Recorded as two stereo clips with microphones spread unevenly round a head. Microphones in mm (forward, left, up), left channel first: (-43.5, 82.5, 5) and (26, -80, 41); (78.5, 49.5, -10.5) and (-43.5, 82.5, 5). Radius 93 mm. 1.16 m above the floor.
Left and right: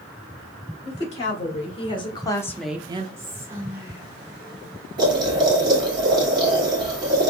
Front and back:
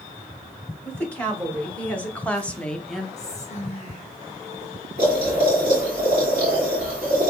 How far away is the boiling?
About 1.9 m.